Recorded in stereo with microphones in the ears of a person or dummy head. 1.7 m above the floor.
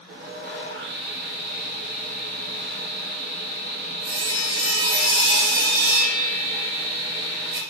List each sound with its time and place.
0.1 s sawing: 40° right (ahead or behind), 1.2 m